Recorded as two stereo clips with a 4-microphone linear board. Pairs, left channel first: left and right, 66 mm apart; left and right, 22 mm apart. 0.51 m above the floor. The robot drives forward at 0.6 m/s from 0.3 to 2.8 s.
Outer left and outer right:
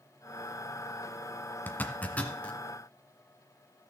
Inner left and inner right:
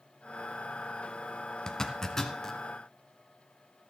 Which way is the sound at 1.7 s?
30° left (ahead or behind).